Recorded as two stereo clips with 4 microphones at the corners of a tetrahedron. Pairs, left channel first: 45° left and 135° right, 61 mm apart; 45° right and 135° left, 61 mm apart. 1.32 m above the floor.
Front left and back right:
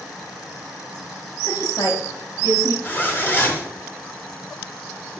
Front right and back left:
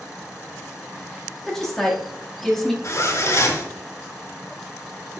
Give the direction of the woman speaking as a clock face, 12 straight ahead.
11 o'clock.